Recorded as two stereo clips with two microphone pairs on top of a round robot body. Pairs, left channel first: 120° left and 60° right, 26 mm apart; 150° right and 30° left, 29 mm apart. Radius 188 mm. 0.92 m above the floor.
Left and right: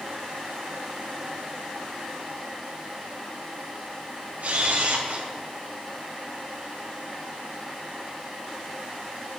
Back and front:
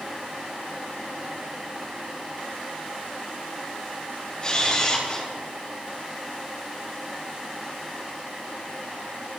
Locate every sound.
4.4 s a camera shutter: 90° right, 2.5 m